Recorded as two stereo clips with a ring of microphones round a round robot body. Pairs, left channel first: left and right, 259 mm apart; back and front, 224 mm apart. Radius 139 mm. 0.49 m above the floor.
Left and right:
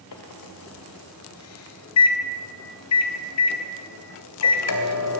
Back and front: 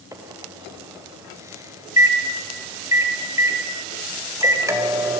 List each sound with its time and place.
0.1 s a microwave: 75° left, 2.5 m